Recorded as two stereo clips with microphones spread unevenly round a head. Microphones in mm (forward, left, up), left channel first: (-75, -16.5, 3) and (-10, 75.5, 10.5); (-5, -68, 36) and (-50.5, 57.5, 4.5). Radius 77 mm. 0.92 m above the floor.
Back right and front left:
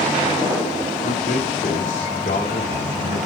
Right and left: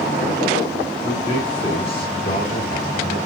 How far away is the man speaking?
About 3 m.